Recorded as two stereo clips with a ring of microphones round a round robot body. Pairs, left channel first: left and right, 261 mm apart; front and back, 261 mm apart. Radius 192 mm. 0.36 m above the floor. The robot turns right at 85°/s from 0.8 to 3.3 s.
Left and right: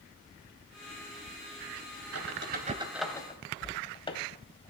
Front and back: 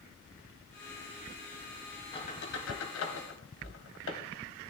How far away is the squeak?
About 1.8 m.